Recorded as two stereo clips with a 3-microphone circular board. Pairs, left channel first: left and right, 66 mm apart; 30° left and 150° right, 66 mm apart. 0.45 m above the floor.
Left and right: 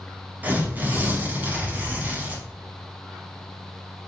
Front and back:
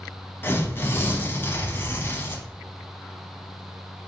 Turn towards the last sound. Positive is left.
turn(degrees=-25)